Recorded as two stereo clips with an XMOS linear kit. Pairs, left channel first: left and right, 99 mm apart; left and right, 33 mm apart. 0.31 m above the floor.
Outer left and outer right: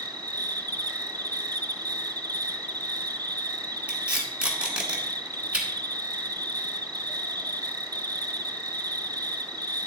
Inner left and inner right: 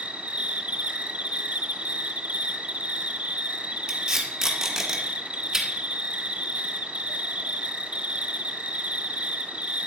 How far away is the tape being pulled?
About 1.9 m.